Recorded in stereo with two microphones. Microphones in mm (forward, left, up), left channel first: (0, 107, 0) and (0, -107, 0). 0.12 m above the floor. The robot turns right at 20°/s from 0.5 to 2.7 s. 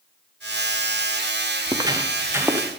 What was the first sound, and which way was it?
Footsteps, 20° right (ahead or behind).